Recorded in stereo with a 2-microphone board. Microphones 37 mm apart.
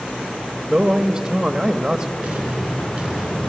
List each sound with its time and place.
0.7 s a man speaking: 20° right (ahead or behind), 1.1 m
2.2 s an explosion: 20° right (ahead or behind), 3.5 m